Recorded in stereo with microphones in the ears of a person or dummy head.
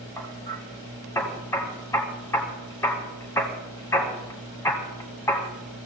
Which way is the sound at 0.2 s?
15° left (ahead or behind).